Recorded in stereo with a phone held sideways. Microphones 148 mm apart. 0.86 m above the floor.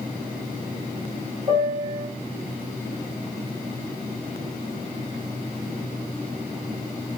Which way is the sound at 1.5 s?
30° right (ahead or behind).